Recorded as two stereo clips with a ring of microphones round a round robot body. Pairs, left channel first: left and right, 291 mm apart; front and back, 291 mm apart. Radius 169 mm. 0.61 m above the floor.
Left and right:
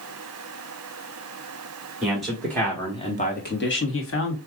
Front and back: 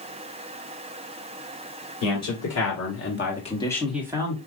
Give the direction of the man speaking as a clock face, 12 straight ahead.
12 o'clock.